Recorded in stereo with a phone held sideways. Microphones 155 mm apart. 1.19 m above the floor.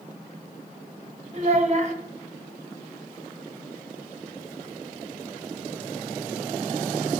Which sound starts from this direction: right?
A child speaking, at 1.3 s.